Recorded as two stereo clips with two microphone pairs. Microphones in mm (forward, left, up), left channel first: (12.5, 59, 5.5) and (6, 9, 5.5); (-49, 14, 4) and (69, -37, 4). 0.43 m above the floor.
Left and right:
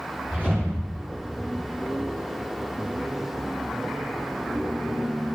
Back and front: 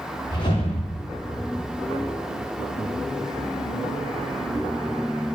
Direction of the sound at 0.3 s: 155° right.